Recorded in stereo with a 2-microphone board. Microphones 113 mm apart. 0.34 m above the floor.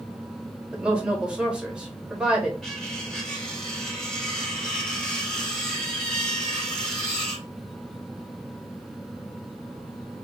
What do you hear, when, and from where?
0.7 s a woman speaking: 10° right (ahead or behind), 1.0 m
2.6 s cutlery clinking: 5° left (ahead or behind), 1.0 m